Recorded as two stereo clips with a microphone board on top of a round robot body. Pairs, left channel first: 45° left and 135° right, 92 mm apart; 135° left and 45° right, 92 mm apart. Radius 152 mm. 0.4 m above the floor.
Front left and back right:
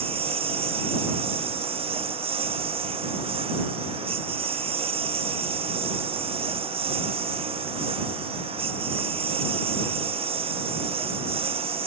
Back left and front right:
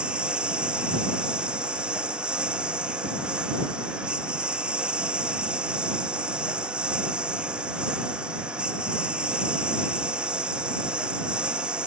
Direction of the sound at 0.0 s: 125° right.